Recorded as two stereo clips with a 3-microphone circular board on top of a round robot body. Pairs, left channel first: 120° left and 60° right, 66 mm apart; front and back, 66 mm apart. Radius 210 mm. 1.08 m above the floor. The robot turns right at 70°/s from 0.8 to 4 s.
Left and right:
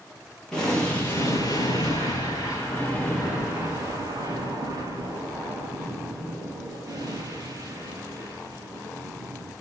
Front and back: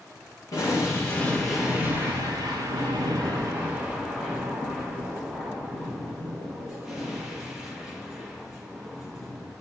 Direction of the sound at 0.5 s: 40° left.